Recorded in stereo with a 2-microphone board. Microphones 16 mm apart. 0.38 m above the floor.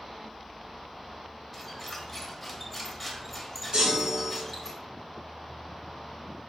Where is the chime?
75° right (ahead or behind), 3 m.